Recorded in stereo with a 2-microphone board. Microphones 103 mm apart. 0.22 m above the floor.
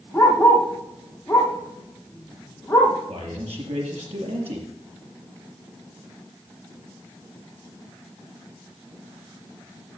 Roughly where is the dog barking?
Centre.